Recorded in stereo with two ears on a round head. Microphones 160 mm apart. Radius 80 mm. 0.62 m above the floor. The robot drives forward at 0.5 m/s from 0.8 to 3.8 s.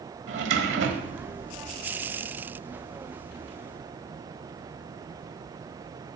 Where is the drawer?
70° right (ahead or behind), 1.3 m; by 1.3 s 85° right, 1.3 m.